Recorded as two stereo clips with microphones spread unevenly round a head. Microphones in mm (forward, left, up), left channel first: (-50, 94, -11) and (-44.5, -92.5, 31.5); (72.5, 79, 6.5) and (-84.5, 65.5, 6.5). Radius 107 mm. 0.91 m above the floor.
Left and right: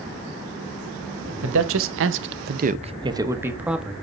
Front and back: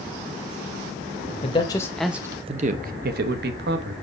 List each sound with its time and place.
1.4 s a man speaking: 55° right, 1.0 m; by 4.0 s straight behind, 1.4 m